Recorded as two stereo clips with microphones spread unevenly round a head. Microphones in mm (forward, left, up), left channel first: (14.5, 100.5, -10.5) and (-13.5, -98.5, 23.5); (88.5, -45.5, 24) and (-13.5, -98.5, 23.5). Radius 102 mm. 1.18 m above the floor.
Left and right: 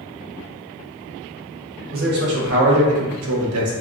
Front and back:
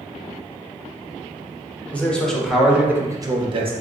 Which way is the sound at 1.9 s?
50° right.